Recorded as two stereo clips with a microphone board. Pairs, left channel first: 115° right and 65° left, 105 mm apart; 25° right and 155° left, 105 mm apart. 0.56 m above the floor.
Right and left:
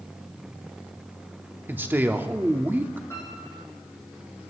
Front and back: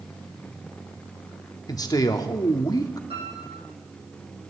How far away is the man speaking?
About 0.8 m.